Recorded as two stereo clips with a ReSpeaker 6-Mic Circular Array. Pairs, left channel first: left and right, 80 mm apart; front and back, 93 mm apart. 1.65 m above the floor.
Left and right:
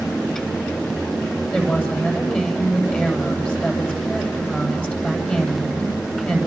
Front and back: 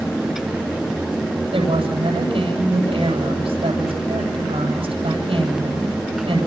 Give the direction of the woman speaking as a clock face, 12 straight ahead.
7 o'clock.